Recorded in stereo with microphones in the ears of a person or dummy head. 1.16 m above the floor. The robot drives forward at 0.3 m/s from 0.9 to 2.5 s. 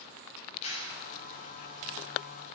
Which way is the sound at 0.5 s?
35° left (ahead or behind).